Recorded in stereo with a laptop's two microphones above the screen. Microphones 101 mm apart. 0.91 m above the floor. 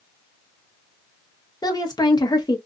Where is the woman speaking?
40° left (ahead or behind), 0.9 m.